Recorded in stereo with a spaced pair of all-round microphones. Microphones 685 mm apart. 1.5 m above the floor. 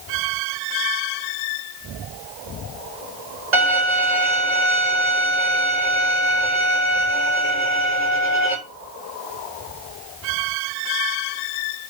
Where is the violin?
80° right, 4 m.